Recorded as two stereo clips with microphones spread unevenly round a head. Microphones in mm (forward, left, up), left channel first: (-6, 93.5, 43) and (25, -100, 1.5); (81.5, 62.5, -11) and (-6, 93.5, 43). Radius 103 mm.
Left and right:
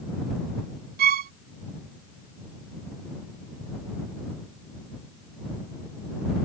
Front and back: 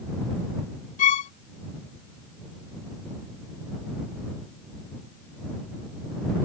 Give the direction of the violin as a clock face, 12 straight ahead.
1 o'clock.